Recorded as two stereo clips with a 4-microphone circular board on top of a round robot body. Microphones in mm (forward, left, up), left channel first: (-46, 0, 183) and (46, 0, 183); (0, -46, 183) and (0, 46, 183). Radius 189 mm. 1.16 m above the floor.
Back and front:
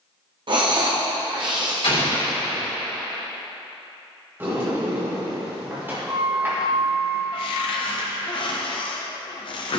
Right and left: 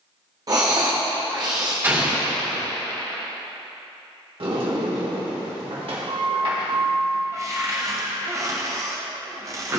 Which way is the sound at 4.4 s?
65° left.